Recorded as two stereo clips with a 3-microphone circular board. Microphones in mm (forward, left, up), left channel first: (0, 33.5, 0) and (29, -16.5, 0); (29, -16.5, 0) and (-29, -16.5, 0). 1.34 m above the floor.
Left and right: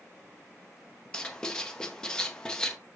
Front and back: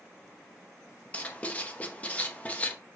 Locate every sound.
1.1 s writing: 50° left, 0.7 m